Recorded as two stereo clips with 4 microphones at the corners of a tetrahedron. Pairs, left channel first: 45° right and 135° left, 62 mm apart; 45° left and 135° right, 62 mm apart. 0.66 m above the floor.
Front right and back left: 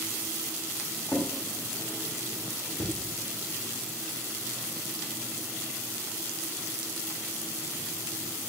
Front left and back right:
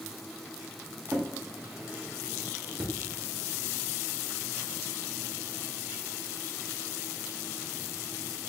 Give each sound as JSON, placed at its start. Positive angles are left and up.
{"t": 1.1, "sound": "a drawer", "azimuth_deg": -80, "distance_m": 0.7}